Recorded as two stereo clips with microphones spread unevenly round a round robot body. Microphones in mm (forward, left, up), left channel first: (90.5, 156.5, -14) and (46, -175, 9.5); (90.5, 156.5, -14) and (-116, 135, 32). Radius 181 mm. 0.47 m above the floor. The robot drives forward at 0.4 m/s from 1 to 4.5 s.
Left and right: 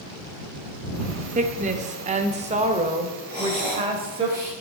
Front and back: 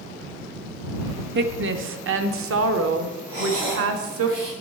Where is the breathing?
Straight behind, 6 m.